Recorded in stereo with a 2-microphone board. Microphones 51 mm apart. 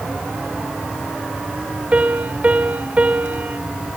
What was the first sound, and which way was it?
A piano, 30° right (ahead or behind).